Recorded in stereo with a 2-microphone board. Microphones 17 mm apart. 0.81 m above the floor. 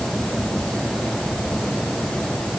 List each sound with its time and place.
Only background noise.